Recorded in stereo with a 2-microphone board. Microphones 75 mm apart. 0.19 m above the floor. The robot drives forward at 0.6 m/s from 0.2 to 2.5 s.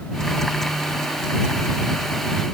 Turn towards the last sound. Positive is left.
No sound to turn to.